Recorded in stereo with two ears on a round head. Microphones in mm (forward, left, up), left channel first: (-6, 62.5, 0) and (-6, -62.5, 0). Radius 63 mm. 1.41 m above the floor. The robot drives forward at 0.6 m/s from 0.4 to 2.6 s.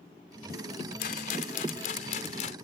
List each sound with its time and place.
1.0 s a rattle: 70° left (ahead or behind); by 2.5 s 55° left (ahead or behind)